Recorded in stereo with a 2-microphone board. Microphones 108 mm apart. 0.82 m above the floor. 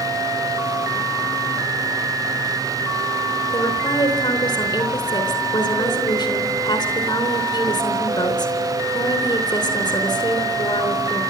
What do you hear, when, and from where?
3.5 s a woman speaking: 45° left (ahead or behind), 3.5 m